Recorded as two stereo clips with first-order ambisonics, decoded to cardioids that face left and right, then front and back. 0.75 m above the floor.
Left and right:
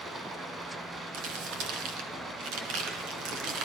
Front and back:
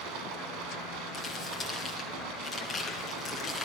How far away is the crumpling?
About 3.5 m.